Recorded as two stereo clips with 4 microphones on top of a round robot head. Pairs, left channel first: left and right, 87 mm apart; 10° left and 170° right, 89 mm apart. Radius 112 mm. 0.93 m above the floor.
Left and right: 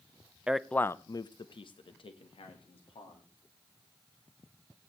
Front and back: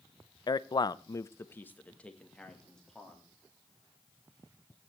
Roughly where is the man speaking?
Ahead.